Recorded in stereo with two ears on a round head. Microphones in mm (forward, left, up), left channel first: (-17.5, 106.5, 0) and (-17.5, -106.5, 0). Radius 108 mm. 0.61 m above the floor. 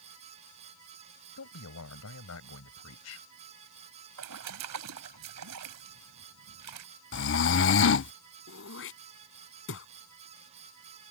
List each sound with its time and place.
1.4 s a man speaking: 70° left (ahead or behind)
4.2 s a splash: 80° right
7.1 s snoring: 50° left (ahead or behind)
8.5 s throat clearing: 60° left (ahead or behind)